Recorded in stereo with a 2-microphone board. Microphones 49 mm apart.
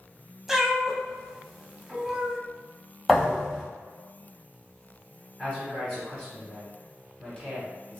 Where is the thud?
Centre (ahead or behind), 1.3 m.